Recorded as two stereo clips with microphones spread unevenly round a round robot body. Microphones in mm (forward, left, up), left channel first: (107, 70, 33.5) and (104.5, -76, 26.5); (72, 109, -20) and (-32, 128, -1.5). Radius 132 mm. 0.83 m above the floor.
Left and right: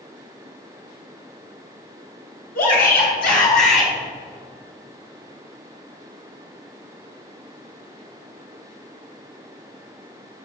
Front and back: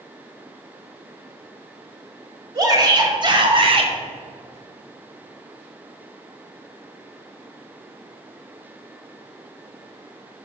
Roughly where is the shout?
Behind left.